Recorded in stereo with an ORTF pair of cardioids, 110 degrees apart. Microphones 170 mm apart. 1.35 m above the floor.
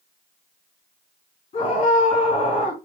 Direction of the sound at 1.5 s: 45° left.